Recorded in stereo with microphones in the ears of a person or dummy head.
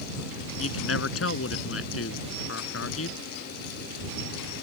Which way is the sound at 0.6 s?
85° left.